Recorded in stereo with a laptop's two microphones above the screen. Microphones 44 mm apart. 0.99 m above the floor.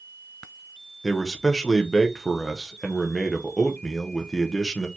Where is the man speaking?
10° left (ahead or behind), 0.7 m.